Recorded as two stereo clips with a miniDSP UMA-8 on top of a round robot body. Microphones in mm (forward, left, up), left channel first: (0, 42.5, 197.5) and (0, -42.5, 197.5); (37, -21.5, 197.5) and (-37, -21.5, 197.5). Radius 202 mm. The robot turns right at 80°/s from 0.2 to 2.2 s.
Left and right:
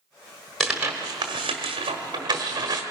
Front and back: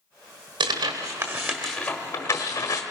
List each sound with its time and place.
0.6 s tearing paper: 175° left, 1.2 m; by 2.8 s 55° right, 1.2 m